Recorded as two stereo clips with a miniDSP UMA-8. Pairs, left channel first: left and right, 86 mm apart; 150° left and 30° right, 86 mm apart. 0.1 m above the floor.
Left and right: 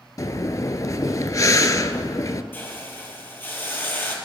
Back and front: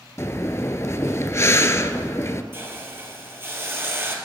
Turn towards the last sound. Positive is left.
turn(degrees=30)